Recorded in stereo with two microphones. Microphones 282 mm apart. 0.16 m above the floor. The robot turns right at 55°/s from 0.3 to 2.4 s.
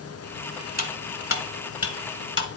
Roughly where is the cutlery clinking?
Left.